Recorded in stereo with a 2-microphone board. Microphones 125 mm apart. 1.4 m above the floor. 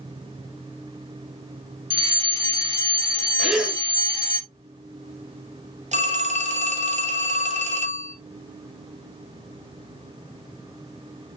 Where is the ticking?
I don't hear ticking.